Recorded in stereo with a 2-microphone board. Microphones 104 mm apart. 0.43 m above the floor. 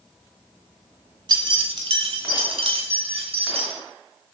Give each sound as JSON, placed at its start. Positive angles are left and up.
{"t": 1.3, "sound": "keys jangling", "side_deg": -45, "distance_m": 0.9}